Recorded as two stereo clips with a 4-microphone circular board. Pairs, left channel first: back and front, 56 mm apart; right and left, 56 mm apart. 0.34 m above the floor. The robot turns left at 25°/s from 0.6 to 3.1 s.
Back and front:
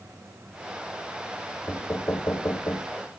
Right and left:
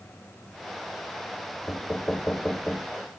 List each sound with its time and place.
1.7 s knocking: 145° right, 0.9 m; by 3.0 s straight behind, 0.9 m